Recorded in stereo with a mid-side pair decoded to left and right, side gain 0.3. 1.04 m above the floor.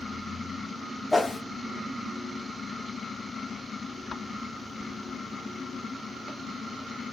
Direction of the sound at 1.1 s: 15° left.